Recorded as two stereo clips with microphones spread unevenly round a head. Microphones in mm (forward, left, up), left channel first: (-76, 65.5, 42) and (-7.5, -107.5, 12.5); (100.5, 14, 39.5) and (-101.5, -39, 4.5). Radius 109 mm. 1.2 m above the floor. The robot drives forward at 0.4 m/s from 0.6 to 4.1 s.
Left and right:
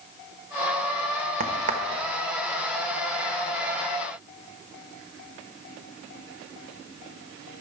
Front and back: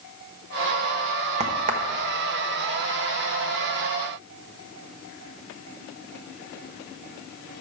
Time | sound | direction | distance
1.4 | a crack | 105° right | 1.1 m